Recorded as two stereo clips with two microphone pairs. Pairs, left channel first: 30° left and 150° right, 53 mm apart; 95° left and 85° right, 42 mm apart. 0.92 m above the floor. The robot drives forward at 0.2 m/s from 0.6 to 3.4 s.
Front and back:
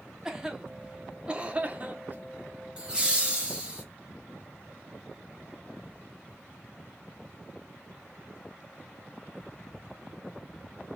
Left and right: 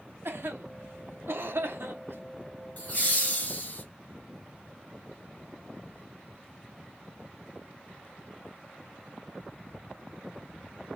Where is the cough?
75° right, 0.7 m; by 2.2 s 100° right, 0.7 m.